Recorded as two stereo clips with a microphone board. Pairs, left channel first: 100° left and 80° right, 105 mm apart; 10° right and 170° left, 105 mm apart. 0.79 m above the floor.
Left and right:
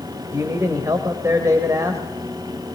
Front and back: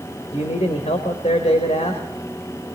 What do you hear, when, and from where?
0.3 s a man speaking: 15° right, 3 m